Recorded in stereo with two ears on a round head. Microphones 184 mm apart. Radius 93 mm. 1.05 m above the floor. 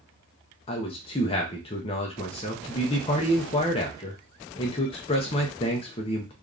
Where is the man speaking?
25° left (ahead or behind), 0.5 m.